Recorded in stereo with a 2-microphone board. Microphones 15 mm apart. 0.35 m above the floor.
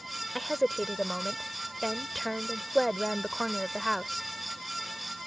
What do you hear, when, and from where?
0.3 s a woman speaking: 5° left (ahead or behind)